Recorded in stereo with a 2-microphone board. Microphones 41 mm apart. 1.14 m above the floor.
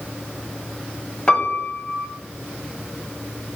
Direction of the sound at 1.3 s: 25° left (ahead or behind).